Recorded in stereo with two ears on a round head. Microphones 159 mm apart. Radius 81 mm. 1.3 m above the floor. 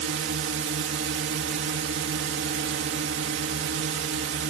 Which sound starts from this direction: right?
A drone, at 0.0 s.